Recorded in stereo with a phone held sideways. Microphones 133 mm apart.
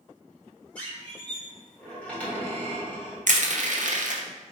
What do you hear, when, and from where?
0.8 s a squeak: 10° left (ahead or behind), 1.6 m
3.3 s crushing: 70° right (ahead or behind), 0.6 m